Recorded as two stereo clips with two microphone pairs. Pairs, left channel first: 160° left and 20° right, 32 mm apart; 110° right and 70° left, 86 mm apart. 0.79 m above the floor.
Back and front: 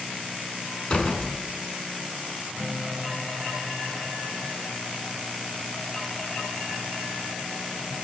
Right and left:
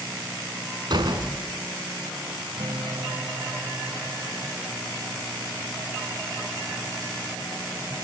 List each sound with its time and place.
0.9 s a door slam: 105° left, 5 m
2.6 s a guitar: 55° left, 3 m